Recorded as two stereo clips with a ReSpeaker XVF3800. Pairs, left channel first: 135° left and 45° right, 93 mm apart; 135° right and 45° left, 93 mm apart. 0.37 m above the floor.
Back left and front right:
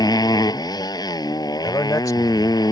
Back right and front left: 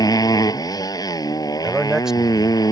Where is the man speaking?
125° left.